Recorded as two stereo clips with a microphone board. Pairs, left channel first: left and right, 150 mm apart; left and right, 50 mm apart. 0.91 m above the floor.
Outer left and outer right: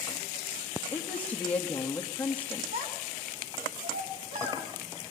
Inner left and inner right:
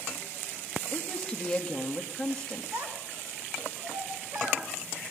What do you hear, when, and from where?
0.9 s a woman speaking: 10° left (ahead or behind), 1.8 m
2.7 s a child speaking: 70° right (ahead or behind), 5.5 m